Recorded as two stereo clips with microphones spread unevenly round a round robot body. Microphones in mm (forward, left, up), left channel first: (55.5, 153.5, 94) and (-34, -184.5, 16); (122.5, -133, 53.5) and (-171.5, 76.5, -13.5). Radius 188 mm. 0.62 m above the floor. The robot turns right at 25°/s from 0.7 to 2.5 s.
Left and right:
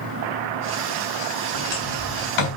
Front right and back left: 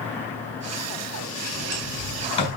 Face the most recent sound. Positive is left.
turn(degrees=45)